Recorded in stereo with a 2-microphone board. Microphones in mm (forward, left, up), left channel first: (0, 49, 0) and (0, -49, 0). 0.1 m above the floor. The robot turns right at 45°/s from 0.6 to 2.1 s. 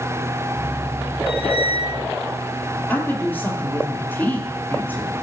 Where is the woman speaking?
20° left (ahead or behind), 3 m.